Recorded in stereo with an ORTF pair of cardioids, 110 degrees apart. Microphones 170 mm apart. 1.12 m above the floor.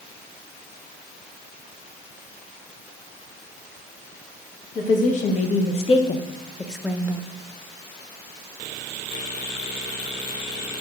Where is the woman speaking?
50° left, 1.5 m; by 7.2 s 35° right, 0.6 m.